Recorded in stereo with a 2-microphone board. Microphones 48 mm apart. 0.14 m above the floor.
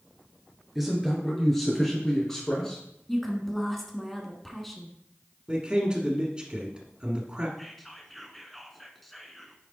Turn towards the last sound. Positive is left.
turn(degrees=5)  # may be behind; listen again after turning